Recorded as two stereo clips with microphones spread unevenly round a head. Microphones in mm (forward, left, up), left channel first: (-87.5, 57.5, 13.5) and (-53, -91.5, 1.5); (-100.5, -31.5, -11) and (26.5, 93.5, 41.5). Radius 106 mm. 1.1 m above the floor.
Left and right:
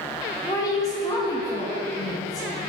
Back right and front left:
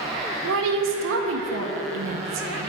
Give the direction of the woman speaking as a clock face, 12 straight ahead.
11 o'clock.